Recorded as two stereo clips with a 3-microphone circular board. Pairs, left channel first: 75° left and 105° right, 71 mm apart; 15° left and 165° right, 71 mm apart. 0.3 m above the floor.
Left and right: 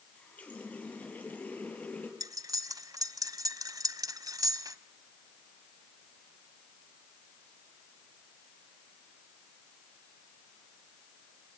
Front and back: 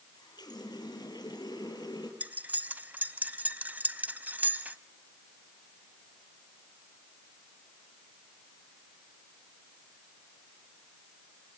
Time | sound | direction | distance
0.1 | a running tap | 5° left | 5.5 m
2.2 | cutlery clinking | 100° right | 1.1 m